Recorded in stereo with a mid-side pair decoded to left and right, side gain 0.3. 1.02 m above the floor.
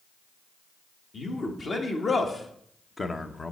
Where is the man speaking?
55° left, 2.0 m; by 3.5 s 40° left, 0.7 m.